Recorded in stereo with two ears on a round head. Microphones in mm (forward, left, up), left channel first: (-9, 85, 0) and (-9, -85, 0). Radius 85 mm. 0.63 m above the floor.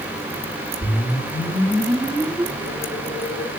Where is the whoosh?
25° left (ahead or behind), 6.5 m.